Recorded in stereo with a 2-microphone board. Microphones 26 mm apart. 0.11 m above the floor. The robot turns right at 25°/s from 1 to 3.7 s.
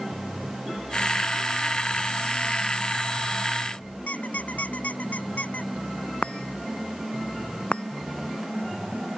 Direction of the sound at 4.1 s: 70° left (ahead or behind).